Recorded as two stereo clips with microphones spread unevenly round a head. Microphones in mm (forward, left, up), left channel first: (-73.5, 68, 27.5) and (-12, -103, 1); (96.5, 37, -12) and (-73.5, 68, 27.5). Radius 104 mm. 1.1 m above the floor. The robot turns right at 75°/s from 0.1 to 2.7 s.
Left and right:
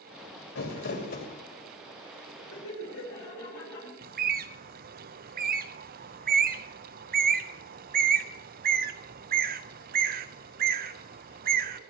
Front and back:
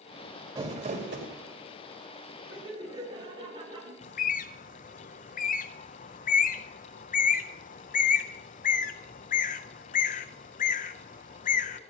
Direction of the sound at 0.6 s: 105° left.